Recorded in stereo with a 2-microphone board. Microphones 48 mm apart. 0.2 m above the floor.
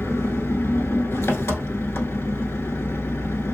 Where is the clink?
No clink in this recording.